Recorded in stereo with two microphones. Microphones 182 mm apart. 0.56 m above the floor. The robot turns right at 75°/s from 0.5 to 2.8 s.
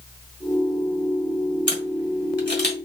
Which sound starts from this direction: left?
A camera shutter, at 1.7 s.